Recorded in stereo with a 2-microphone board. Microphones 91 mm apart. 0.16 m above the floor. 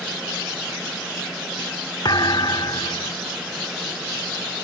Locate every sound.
2.0 s a thud: 50° left (ahead or behind)